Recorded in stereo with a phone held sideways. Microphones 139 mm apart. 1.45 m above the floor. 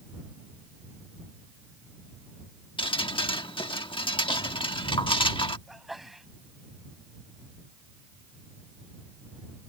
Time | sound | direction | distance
2.8 | dripping | 40° left (ahead or behind) | ?
5.7 | a sneeze | centre (ahead or behind) | ?